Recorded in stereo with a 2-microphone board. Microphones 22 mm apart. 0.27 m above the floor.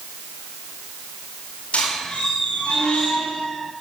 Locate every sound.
1.7 s a squeak: 80° left, 10 m